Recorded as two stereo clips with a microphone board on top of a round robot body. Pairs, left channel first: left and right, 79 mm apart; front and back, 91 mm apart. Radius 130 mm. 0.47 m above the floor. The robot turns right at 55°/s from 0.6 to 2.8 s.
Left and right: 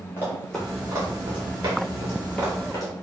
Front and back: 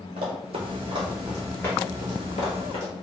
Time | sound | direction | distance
0.2 | running footsteps | 160° left | 0.9 m